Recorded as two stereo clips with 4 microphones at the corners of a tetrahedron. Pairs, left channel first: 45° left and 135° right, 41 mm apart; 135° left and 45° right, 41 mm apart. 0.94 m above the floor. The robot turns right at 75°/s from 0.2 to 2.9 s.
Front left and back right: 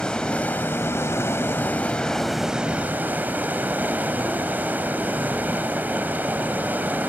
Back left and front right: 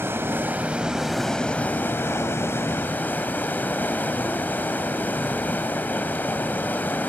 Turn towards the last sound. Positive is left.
turn(degrees=180)